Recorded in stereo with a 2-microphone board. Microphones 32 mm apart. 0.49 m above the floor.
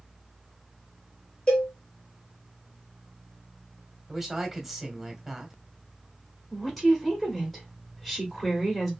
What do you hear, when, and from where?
1.5 s a cowbell: 25° left (ahead or behind), 1.8 m
4.1 s a woman speaking: 10° right (ahead or behind), 1.4 m
6.5 s a woman speaking: centre (ahead or behind), 1.2 m